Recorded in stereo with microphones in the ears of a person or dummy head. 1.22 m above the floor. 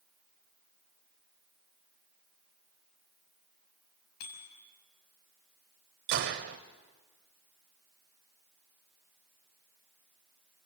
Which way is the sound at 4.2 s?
55° left (ahead or behind).